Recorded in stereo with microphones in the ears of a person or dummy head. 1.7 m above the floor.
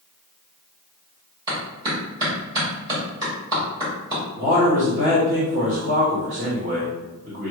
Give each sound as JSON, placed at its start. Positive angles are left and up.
{"t": 1.5, "sound": "a clap", "side_deg": -20, "distance_m": 2.0}
{"t": 4.4, "sound": "a man speaking", "side_deg": -40, "distance_m": 1.1}